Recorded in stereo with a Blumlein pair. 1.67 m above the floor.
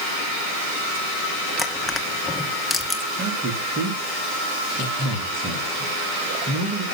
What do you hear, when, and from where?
1.6 s crushing: 10° left, 2 m
3.2 s a man speaking: 30° right, 4 m